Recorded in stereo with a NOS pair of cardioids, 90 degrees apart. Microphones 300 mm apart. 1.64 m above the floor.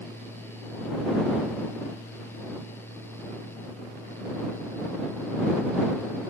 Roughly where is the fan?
Ahead.